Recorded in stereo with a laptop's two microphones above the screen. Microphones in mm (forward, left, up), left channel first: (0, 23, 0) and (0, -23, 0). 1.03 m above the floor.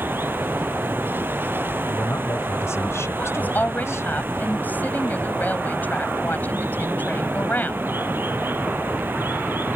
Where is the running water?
50° right (ahead or behind).